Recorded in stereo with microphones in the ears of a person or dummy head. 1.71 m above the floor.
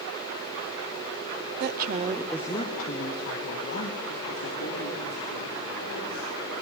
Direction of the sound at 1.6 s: 60° right (ahead or behind).